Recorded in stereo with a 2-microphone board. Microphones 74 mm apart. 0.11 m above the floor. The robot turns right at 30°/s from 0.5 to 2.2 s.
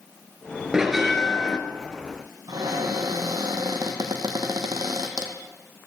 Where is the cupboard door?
60° right (ahead or behind), 1.6 m.